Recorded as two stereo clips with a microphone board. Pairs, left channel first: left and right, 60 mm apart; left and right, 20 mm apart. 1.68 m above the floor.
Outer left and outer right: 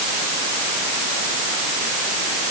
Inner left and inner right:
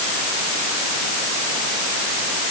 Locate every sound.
Only background noise.